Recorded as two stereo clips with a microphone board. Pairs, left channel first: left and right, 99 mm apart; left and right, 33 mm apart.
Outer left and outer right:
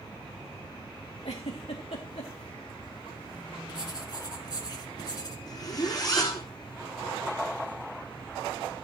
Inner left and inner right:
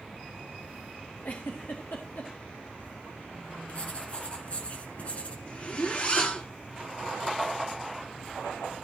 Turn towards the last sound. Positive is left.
turn(degrees=40)  # may be behind; listen again after turning